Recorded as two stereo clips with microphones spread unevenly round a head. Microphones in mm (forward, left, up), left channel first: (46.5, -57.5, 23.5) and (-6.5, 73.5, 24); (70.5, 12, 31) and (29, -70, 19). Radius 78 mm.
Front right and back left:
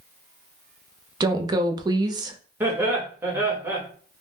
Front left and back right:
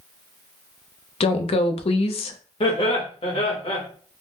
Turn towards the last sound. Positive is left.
turn(degrees=35)